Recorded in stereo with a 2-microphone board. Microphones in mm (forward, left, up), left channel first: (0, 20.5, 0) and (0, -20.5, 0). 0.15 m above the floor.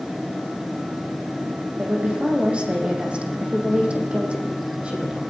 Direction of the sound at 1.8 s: 30° right (ahead or behind).